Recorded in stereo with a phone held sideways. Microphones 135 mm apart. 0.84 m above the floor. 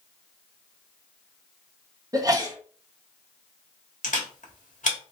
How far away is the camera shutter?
About 1.5 m.